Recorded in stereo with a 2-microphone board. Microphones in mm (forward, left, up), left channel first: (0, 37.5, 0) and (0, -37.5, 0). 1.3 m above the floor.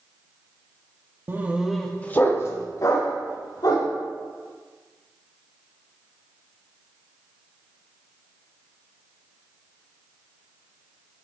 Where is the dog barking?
30° right (ahead or behind), 0.8 m; by 3.9 s 60° left (ahead or behind), 2 m.